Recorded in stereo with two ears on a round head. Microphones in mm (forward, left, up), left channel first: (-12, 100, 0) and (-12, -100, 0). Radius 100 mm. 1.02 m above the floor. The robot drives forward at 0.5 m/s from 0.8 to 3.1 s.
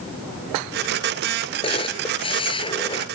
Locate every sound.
1.6 s a camera shutter: 25° left (ahead or behind)